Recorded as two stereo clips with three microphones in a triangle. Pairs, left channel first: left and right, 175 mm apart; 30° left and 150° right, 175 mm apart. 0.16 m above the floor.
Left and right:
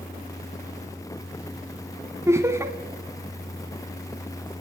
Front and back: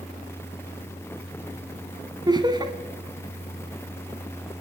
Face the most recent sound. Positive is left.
turn(degrees=-140)